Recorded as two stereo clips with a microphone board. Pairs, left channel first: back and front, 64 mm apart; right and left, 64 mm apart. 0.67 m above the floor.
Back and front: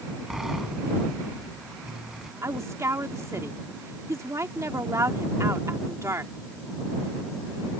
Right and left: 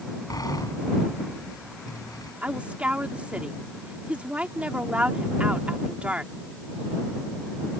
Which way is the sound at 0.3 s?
80° right.